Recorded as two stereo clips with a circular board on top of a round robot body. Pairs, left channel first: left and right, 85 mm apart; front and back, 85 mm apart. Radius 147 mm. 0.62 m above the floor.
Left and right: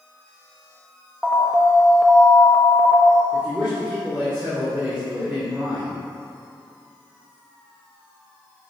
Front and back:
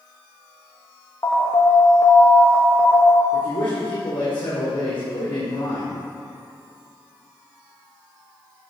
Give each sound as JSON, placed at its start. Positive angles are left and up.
{"t": 1.2, "sound": "an alarm", "azimuth_deg": -5, "distance_m": 1.4}
{"t": 3.3, "sound": "a man speaking", "azimuth_deg": -10, "distance_m": 2.5}